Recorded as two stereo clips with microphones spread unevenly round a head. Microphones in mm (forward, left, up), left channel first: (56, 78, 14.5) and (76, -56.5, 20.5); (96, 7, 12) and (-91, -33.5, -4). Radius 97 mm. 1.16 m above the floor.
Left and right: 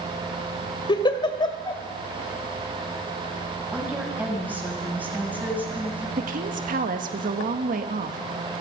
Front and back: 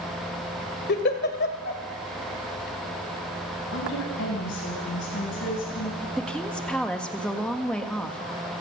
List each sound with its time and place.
0.9 s a giggle: 45° left, 2.5 m
3.7 s a woman speaking: 5° right, 9 m
6.2 s a woman speaking: 75° right, 1.8 m